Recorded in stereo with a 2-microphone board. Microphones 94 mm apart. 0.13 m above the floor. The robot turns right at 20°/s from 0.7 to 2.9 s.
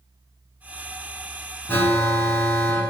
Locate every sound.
1.7 s an alarm: 25° left (ahead or behind), 0.9 m